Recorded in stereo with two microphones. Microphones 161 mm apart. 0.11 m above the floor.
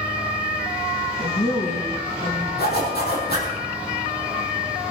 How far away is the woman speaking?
About 6.5 m.